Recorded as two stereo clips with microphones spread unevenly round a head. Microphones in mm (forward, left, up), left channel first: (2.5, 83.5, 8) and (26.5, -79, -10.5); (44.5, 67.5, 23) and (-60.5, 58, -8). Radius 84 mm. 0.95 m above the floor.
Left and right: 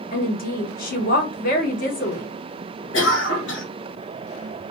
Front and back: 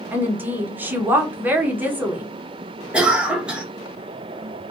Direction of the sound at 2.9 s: 115° left.